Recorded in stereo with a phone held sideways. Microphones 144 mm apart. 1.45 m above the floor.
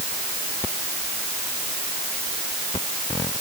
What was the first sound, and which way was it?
Only background noise.